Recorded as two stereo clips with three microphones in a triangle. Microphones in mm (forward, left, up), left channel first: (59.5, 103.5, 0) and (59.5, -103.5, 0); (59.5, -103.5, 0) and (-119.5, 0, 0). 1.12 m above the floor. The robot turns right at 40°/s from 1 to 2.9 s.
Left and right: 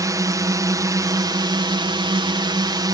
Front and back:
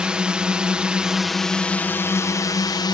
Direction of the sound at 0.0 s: 130° right.